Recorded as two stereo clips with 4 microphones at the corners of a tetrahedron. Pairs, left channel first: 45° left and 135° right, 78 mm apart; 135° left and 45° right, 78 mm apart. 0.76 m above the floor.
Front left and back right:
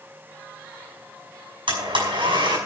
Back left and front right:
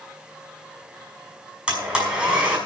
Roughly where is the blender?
Behind right.